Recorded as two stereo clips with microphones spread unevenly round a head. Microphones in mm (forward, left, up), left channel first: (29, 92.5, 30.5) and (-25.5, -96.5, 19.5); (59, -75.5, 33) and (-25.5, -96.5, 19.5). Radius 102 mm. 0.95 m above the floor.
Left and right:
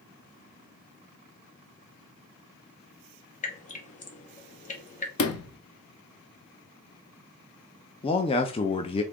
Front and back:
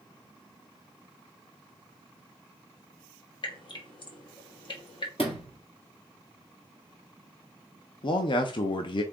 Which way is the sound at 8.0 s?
15° left.